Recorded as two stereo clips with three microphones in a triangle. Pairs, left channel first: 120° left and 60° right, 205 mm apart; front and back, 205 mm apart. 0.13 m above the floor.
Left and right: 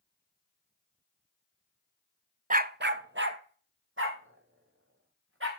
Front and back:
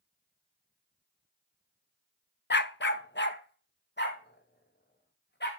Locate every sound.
2.5 s a dog barking: 15° right, 0.5 m; by 5.5 s 40° right, 3.5 m